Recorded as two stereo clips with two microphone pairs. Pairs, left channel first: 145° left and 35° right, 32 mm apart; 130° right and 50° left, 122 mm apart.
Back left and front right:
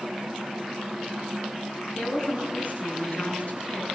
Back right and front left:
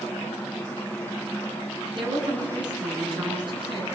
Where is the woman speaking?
100° left, 9 m.